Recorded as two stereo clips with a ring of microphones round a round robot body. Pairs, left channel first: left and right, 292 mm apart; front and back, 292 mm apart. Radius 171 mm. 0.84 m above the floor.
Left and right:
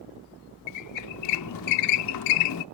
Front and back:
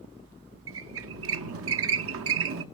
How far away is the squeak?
About 0.7 m.